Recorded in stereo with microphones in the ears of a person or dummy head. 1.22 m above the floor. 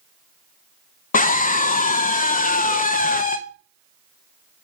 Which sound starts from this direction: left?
A scream, at 1.1 s.